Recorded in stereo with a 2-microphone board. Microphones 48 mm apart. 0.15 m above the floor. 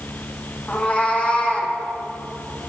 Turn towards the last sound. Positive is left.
turn(degrees=30)  # may be behind; listen again after turning